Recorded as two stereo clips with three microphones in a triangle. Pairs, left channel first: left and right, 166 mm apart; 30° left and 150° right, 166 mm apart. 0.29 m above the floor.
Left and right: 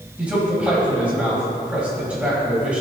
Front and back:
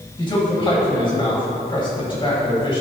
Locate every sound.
0.2 s a man speaking: 10° right, 1.8 m